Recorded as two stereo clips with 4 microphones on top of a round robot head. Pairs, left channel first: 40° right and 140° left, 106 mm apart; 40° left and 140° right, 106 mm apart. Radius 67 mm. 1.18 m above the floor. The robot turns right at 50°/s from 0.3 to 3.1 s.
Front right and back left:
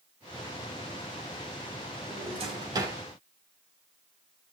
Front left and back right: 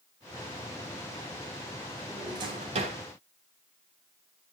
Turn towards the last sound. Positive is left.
turn(degrees=-150)